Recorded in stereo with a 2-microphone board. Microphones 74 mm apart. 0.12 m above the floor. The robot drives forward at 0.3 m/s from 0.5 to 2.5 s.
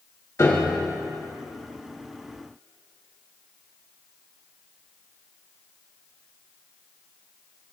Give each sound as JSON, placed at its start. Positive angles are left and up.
{"t": 0.4, "sound": "a piano", "side_deg": 40, "distance_m": 1.5}